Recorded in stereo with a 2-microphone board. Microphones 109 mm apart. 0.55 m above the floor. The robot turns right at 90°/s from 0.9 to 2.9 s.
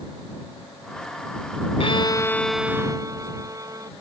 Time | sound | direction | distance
1.8 | a violin | 115° left | ?